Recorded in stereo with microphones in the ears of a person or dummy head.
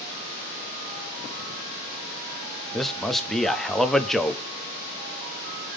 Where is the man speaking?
5° left (ahead or behind), 0.5 m.